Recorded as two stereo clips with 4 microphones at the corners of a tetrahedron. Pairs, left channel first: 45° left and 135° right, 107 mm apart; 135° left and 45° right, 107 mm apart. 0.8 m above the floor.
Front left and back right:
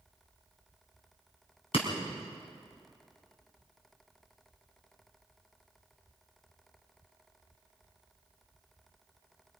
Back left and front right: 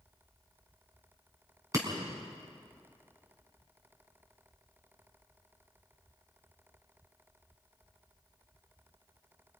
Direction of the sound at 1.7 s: 15° left.